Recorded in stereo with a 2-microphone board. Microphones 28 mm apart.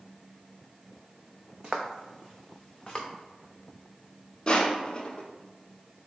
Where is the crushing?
30° left (ahead or behind), 0.7 m.